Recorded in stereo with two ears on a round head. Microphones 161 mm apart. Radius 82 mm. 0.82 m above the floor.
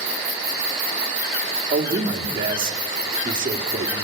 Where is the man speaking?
25° right (ahead or behind), 2 m.